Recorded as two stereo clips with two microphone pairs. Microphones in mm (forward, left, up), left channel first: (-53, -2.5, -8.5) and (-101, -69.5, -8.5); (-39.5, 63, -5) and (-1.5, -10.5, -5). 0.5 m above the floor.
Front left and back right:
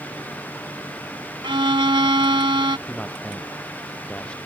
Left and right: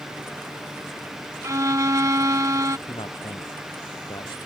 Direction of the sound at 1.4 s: 115° right.